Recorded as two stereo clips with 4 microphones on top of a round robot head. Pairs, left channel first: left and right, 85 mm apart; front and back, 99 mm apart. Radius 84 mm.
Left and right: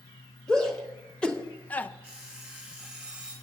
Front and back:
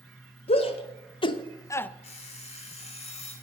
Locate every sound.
0.5 s a shout: 5° left, 1.4 m; by 1.9 s 55° left, 0.5 m
2.0 s an alarm clock: 5° left, 3.5 m